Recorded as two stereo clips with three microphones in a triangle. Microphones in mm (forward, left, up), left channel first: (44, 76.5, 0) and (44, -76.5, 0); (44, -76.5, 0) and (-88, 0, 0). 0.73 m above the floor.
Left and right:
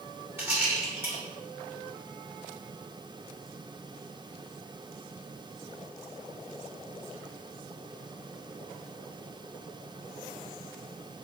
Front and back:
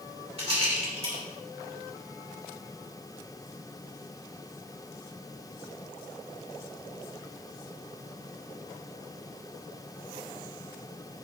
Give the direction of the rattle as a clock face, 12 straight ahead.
5 o'clock.